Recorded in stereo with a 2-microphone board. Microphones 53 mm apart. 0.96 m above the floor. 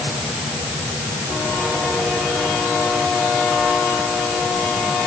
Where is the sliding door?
No sliding door in this recording.